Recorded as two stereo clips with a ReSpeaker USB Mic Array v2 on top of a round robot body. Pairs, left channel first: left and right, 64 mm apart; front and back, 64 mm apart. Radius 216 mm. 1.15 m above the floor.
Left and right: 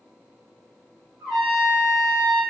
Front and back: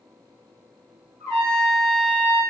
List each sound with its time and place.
1.2 s a trumpet: 120° right, 0.7 m